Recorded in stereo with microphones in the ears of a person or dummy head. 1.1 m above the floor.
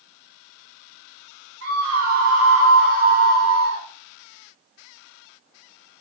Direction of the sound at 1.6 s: 70° right (ahead or behind).